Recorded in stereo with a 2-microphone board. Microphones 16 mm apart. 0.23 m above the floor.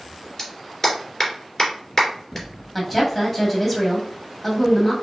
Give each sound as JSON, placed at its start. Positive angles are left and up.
{"t": 0.4, "sound": "a clap", "side_deg": 15, "distance_m": 2.5}
{"t": 2.8, "sound": "a woman speaking", "side_deg": 5, "distance_m": 1.6}